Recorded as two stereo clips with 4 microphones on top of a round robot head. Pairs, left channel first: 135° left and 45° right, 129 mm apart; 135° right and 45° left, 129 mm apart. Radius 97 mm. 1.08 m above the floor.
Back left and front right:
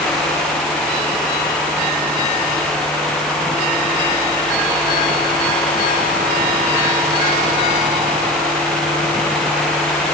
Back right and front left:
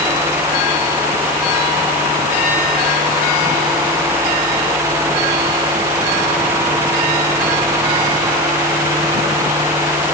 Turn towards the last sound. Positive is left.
No sound to turn to.